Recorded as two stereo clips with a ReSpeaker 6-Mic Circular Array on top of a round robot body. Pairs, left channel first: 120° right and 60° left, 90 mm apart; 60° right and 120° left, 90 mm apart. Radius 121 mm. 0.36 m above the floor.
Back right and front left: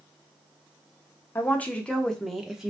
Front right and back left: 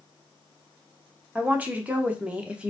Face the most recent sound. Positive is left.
turn(degrees=110)